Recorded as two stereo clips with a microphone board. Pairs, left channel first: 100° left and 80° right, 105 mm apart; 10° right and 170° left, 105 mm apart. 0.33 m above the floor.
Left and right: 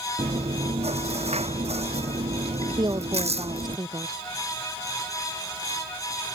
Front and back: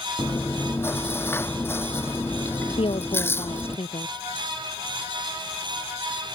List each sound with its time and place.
0.2 s chewing: 80° right
2.8 s a woman speaking: 35° right